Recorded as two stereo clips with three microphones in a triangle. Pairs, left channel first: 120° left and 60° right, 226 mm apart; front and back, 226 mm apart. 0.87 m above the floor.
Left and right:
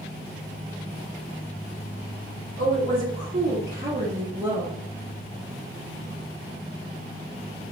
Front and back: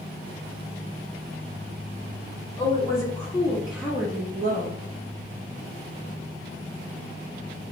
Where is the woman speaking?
70° right, 1.7 m; by 4.8 s 135° right, 1.1 m.